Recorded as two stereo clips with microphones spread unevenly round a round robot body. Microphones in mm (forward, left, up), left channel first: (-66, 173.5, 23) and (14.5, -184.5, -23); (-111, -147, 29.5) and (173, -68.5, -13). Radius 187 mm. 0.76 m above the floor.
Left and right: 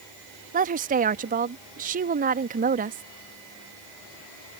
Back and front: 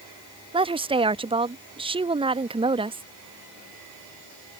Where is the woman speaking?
35° right.